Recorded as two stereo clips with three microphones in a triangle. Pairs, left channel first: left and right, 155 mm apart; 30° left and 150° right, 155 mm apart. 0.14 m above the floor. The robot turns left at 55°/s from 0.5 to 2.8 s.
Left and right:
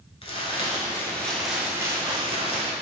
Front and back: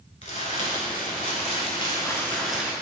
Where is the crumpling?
50° left, 0.7 m; by 2.7 s 75° right, 0.7 m.